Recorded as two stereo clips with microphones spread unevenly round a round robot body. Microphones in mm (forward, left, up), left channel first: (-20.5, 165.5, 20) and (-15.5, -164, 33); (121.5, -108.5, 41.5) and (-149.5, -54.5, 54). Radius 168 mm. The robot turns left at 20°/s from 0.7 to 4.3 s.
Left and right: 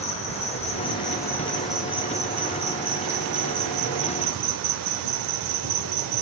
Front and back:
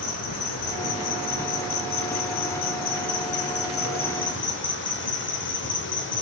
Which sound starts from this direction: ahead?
An insect, at 0.0 s.